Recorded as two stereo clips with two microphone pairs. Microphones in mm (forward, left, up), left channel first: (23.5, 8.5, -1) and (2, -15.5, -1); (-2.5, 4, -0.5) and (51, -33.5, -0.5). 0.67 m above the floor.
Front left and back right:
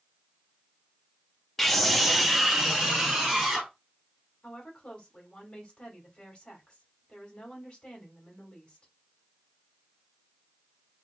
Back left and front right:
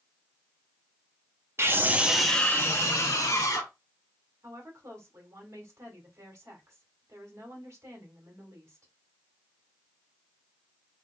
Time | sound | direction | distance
1.6 | a scream | 30° right | 0.9 m
4.4 | a woman speaking | straight ahead | 1.8 m